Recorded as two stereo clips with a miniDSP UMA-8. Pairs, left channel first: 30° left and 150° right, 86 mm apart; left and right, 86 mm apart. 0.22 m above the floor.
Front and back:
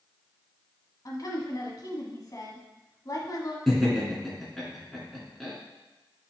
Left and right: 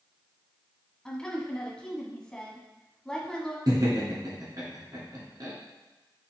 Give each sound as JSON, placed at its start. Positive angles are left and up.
{"t": 1.1, "sound": "a woman speaking", "azimuth_deg": 15, "distance_m": 1.5}
{"t": 3.7, "sound": "laughter", "azimuth_deg": -60, "distance_m": 2.5}